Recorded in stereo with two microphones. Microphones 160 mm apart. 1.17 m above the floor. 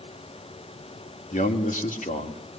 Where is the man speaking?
60° left (ahead or behind), 2.5 m.